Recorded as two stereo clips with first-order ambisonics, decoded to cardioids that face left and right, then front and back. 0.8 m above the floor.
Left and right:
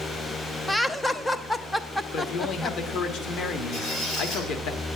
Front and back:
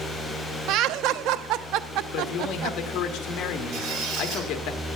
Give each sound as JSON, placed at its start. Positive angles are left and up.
{"t": 0.7, "sound": "laughter", "azimuth_deg": 175, "distance_m": 0.6}
{"t": 2.1, "sound": "a man speaking", "azimuth_deg": 45, "distance_m": 1.4}
{"t": 3.7, "sound": "a squeak", "azimuth_deg": 145, "distance_m": 3.0}